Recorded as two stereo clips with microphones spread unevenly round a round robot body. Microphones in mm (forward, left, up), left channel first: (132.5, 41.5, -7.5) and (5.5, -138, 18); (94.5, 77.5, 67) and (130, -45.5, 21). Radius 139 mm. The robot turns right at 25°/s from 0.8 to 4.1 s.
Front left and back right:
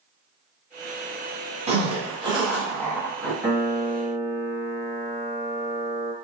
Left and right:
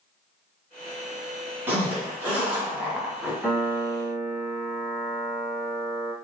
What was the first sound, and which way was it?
A zipper, 75° right.